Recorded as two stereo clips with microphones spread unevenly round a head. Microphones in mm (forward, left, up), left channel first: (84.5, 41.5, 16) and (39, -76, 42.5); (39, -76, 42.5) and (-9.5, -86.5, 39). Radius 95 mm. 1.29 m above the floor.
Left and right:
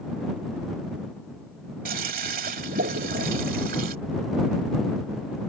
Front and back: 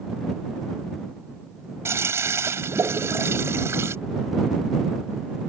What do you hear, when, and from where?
1.9 s a toilet flushing: 140° right